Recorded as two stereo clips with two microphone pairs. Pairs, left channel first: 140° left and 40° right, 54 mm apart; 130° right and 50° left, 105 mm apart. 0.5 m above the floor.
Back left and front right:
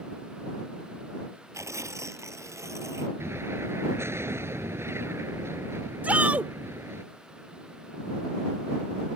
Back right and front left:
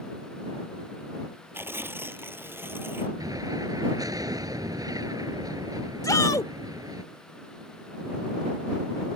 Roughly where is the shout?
Right.